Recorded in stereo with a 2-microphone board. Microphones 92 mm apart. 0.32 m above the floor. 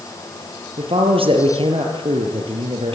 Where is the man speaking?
70° right (ahead or behind), 6 m.